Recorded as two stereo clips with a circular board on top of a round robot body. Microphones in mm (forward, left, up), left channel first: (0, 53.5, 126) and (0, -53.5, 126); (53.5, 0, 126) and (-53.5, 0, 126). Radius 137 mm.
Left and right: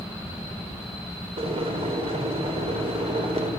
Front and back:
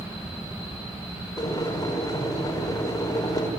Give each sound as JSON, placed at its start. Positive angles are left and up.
{"t": 1.4, "sound": "boiling", "azimuth_deg": -60, "distance_m": 5.0}